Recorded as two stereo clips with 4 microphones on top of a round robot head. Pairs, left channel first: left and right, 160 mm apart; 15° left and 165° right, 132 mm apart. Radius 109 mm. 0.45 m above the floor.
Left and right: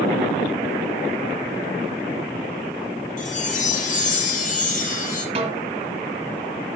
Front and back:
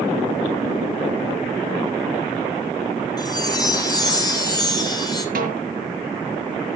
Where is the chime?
65° left, 3 m.